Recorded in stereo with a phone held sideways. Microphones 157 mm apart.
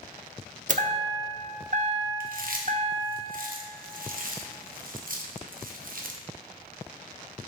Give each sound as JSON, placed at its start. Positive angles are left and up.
{"t": 0.7, "sound": "a chime", "side_deg": -55, "distance_m": 0.5}
{"t": 2.2, "sound": "chewing", "side_deg": -65, "distance_m": 0.8}